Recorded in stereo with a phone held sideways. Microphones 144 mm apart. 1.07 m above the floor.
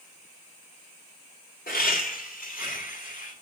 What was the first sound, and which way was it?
Laughter, 85° left.